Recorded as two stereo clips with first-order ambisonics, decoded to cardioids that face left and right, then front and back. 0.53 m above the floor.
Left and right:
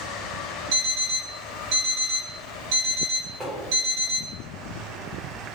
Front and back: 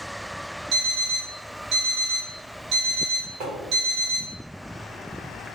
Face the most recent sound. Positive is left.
turn(degrees=-160)